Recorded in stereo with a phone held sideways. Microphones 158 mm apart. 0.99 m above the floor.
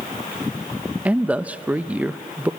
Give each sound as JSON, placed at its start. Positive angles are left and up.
{"t": 1.1, "sound": "a man speaking", "side_deg": -10, "distance_m": 0.5}